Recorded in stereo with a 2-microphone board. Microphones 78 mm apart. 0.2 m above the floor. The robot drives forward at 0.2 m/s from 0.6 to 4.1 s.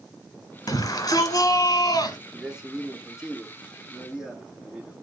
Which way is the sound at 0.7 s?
45° left (ahead or behind).